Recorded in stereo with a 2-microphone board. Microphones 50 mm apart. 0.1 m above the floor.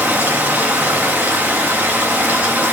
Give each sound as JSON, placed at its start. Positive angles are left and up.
{"t": 0.0, "sound": "running water", "side_deg": -30, "distance_m": 2.5}